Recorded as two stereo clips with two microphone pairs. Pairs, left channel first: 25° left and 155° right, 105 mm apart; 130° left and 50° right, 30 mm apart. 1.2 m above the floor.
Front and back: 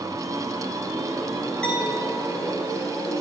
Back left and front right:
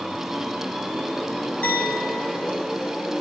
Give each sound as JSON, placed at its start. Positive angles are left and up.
{"t": 1.6, "sound": "a clink", "azimuth_deg": 105, "distance_m": 7.5}